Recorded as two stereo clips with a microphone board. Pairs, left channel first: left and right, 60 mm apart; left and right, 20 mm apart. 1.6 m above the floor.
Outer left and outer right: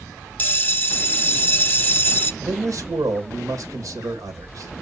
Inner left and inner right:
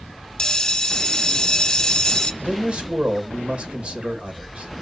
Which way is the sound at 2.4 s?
60° right (ahead or behind).